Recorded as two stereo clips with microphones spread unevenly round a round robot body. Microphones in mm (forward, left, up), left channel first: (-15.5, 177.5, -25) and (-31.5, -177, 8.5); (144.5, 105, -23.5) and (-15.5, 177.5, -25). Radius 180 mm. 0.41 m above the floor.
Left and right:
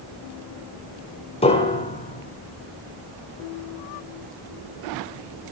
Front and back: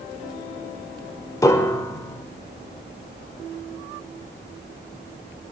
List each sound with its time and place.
1.4 s a piano: 35° left, 1.3 m